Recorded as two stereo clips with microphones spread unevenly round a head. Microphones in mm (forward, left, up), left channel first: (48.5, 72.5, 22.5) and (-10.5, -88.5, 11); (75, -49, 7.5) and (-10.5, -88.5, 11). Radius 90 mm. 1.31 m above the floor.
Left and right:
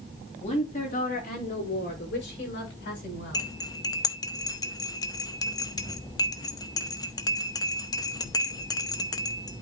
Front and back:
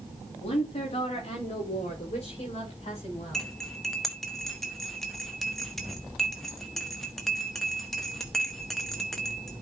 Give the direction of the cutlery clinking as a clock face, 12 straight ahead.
8 o'clock.